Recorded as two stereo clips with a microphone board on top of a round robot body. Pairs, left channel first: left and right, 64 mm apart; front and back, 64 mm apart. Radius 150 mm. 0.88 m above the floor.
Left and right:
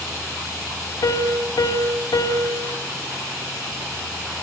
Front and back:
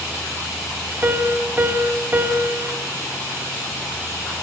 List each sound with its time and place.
1.0 s a piano: 115° left, 2.5 m